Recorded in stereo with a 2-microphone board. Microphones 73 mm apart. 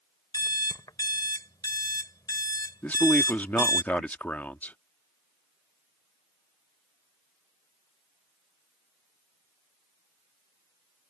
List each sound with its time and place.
0.3 s an alarm clock: 65° left (ahead or behind)
2.8 s a man speaking: 20° left (ahead or behind)